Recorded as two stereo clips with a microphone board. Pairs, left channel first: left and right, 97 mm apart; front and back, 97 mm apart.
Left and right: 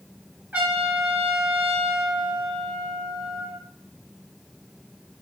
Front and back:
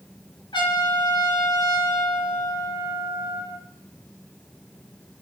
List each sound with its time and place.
0.5 s a trumpet: 15° right, 3 m